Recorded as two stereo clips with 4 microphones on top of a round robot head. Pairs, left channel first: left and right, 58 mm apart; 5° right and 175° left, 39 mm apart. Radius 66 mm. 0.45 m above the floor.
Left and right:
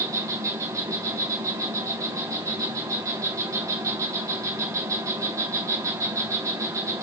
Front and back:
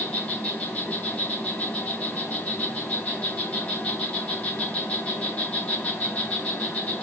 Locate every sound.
0.0 s an insect: 60° right, 4.5 m